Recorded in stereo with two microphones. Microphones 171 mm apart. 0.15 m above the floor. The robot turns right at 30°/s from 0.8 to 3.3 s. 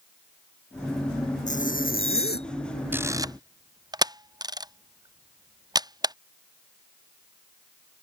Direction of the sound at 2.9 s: 10° right (ahead or behind).